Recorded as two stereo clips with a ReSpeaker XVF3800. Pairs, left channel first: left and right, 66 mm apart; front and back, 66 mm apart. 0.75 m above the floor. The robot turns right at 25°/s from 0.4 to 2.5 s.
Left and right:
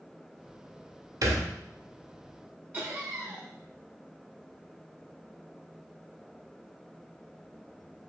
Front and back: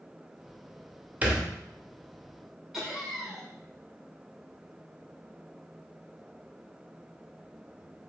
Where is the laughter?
100° right, 0.6 m.